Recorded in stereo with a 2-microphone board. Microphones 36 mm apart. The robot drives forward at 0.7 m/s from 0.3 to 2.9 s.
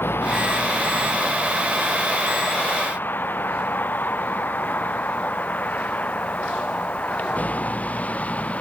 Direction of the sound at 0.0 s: 75° left (ahead or behind).